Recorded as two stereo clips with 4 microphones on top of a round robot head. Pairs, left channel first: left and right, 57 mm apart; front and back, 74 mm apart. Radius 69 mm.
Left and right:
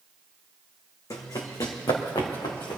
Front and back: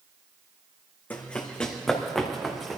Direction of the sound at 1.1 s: 70° left.